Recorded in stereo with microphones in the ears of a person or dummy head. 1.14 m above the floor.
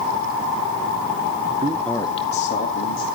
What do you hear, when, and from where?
1.6 s a man speaking: 35° right (ahead or behind), 0.6 m; by 3.0 s 50° left (ahead or behind), 2 m